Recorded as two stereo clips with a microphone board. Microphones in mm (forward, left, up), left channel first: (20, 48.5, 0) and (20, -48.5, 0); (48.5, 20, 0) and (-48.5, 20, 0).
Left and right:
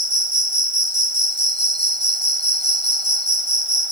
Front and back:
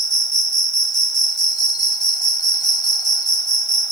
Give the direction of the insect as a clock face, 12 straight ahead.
2 o'clock.